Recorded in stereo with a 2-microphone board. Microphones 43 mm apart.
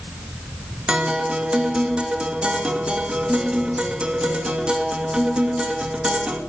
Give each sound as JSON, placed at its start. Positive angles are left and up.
{"t": 0.9, "sound": "a guitar", "side_deg": -25, "distance_m": 2.0}